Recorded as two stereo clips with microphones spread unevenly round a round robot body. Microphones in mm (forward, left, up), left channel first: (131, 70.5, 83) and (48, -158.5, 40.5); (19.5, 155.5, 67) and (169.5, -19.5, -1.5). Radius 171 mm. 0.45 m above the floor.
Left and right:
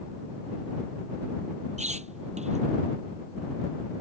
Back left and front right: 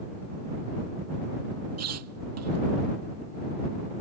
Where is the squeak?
45° right.